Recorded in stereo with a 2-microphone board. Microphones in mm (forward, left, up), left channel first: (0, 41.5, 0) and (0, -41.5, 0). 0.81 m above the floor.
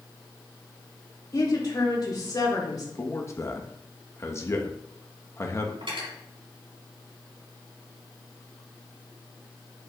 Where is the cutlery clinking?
85° right, 4 m.